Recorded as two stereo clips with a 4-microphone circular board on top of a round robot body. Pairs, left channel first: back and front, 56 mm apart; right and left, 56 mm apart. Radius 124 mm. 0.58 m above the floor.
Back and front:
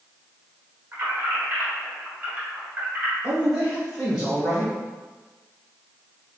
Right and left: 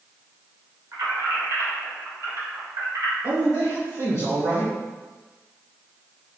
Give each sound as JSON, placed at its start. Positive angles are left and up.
{"t": 0.9, "sound": "keys jangling", "azimuth_deg": 55, "distance_m": 1.5}
{"t": 3.2, "sound": "a man speaking", "azimuth_deg": 85, "distance_m": 1.8}